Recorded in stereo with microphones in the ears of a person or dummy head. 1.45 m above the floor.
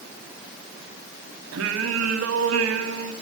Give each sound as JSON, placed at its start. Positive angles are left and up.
{"t": 1.5, "sound": "singing", "side_deg": -70, "distance_m": 3.0}